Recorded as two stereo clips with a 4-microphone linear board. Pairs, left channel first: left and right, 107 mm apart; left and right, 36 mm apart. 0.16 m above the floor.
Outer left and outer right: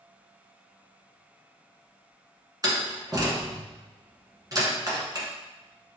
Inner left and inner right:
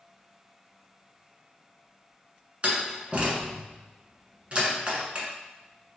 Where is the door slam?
35° right (ahead or behind), 1.2 m.